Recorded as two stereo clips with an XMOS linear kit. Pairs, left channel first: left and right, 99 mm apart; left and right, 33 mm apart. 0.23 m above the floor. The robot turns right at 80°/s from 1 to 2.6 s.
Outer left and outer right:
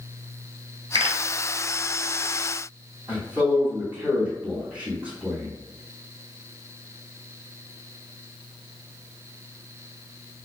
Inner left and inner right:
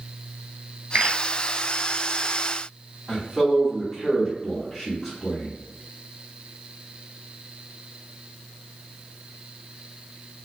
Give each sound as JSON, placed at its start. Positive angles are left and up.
{"t": 0.9, "sound": "a pop", "side_deg": -60, "distance_m": 1.5}
{"t": 3.1, "sound": "a man speaking", "side_deg": -15, "distance_m": 1.9}